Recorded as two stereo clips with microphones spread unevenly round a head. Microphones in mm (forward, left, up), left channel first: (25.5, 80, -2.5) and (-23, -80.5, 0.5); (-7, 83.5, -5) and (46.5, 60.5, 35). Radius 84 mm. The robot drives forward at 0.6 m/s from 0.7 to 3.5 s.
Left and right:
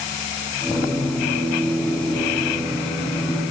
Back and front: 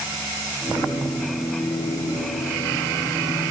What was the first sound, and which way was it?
Only background noise.